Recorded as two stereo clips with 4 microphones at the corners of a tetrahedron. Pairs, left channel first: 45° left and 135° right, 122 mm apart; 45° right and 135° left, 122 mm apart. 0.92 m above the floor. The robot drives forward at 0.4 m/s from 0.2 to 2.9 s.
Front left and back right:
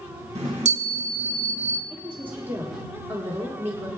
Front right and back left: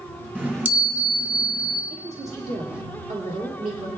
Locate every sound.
0.3 s a chime: 150° right, 1.6 m; by 1.8 s 155° right, 2 m
1.9 s a woman speaking: 150° left, 1.7 m; by 3.9 s 155° left, 2 m